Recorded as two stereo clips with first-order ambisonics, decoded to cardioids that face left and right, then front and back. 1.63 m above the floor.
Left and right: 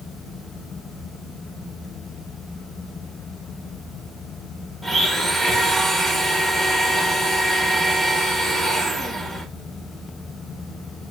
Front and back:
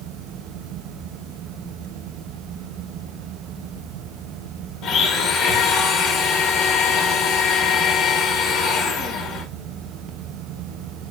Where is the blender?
5° left, 0.8 m.